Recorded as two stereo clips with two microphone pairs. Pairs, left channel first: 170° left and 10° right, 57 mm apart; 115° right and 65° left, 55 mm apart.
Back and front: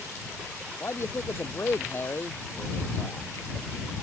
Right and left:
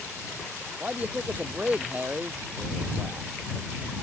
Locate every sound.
0.8 s a man speaking: 125° left